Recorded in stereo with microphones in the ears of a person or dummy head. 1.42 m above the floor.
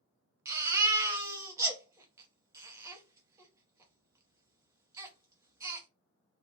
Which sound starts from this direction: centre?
A baby crying, at 0.5 s.